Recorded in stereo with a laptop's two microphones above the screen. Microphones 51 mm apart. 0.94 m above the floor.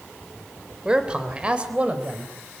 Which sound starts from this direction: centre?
A man speaking, at 0.8 s.